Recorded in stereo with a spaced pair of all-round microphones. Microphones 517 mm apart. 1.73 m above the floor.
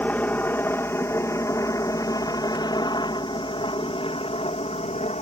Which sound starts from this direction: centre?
A helicopter, at 0.0 s.